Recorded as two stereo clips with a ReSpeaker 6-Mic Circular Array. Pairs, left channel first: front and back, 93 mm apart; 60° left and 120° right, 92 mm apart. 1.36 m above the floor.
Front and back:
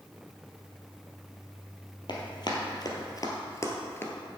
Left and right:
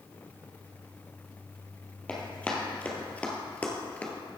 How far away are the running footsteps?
About 2 m.